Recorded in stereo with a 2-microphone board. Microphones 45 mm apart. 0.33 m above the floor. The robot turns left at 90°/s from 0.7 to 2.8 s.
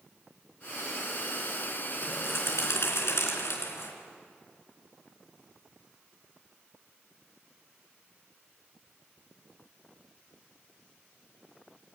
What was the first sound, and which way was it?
A bird, 150° left.